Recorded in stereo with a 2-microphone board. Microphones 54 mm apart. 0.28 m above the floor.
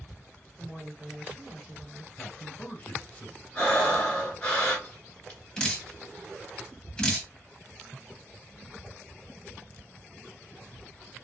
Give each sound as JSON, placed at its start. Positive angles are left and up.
{"t": 0.6, "sound": "a woman speaking", "side_deg": -15, "distance_m": 1.9}
{"t": 2.1, "sound": "a man speaking", "side_deg": 35, "distance_m": 1.4}
{"t": 3.5, "sound": "breathing", "side_deg": 25, "distance_m": 1.4}
{"t": 5.6, "sound": "dripping", "side_deg": 15, "distance_m": 1.0}